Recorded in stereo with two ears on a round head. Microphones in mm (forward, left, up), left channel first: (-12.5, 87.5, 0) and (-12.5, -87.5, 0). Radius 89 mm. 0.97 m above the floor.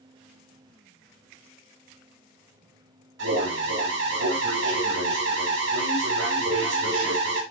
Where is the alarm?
65° right (ahead or behind), 4 m.